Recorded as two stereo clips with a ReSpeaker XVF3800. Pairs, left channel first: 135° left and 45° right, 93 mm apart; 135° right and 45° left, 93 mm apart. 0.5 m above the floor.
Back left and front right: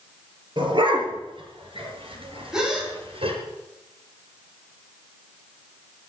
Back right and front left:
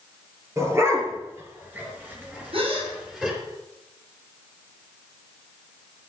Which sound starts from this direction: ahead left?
A gasp, at 2.5 s.